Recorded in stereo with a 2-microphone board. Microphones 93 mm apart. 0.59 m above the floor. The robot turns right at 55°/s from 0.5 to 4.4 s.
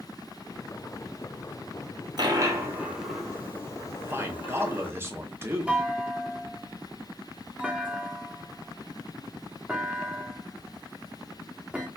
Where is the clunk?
15° right (ahead or behind), 0.8 m.